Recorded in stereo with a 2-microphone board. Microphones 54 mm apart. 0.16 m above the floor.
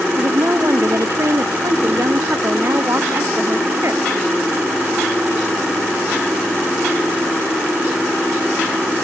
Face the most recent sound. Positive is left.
turn(degrees=-65)  # may be behind; listen again after turning